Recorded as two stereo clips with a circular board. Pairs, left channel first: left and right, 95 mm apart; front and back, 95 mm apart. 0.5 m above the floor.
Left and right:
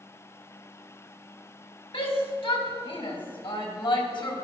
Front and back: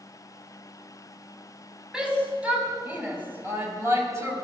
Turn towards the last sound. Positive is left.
turn(degrees=125)